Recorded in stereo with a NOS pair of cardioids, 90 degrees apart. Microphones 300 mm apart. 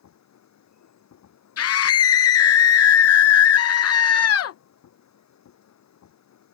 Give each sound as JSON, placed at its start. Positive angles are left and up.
{"t": 0.0, "sound": "a machine running", "azimuth_deg": 65}
{"t": 1.6, "sound": "a scream", "azimuth_deg": 55}